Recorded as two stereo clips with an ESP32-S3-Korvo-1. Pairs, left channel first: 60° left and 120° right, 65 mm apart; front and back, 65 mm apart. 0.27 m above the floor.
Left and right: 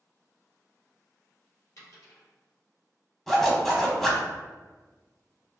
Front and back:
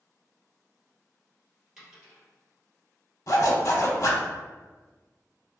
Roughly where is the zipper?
Ahead right.